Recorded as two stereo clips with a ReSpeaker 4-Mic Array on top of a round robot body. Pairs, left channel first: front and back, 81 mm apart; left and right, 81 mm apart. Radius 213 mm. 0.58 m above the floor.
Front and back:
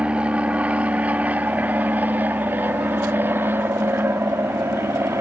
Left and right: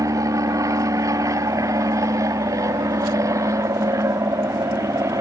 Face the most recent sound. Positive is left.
turn(degrees=-130)